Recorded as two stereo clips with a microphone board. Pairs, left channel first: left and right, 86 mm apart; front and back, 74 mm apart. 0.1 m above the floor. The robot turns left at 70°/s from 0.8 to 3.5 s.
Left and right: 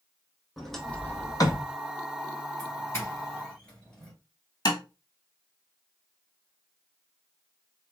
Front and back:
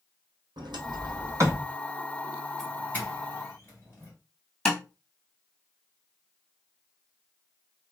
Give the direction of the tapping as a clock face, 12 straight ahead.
10 o'clock.